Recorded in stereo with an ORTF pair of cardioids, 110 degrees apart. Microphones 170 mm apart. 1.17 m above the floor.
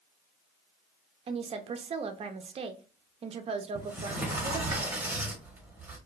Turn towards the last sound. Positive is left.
turn(degrees=-10)